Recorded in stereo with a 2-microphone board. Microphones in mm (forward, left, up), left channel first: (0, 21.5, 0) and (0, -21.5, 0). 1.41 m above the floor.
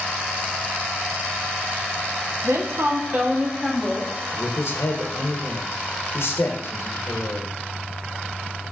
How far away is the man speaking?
About 0.7 m.